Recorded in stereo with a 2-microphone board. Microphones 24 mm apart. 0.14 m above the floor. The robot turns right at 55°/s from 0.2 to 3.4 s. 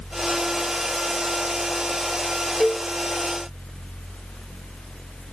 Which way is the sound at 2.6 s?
35° left (ahead or behind).